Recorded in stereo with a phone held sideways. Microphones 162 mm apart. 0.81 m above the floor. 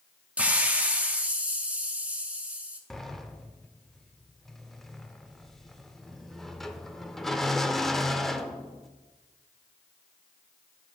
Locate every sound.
0.4 s a hiss: 10° right (ahead or behind), 0.9 m
2.9 s a sliding door: centre (ahead or behind), 0.5 m